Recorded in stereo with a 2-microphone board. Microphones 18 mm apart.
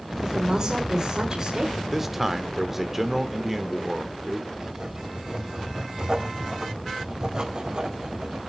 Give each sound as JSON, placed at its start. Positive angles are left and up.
{"t": 0.2, "sound": "a woman speaking", "side_deg": -35, "distance_m": 1.6}
{"t": 1.8, "sound": "a man speaking", "side_deg": -15, "distance_m": 1.0}
{"t": 4.5, "sound": "writing", "side_deg": -45, "distance_m": 2.0}